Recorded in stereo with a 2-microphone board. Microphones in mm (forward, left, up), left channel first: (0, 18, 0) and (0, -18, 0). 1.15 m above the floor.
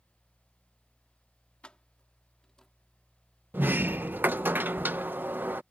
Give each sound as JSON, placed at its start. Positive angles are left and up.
{"t": 1.6, "sound": "keys jangling", "side_deg": 30}
{"t": 3.5, "sound": "a sliding door", "side_deg": -75}